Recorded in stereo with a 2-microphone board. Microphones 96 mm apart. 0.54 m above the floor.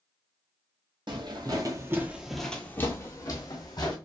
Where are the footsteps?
55° right (ahead or behind), 0.9 m; by 4.0 s 50° left (ahead or behind), 1.2 m.